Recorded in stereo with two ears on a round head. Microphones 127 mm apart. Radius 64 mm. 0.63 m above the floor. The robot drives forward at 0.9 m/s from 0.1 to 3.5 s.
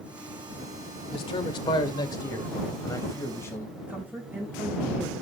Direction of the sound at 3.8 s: 10° right (ahead or behind).